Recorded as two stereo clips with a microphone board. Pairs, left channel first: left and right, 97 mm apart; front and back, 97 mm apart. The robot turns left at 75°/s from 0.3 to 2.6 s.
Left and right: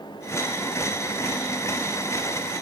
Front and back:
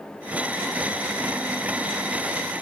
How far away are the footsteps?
No footsteps in this recording.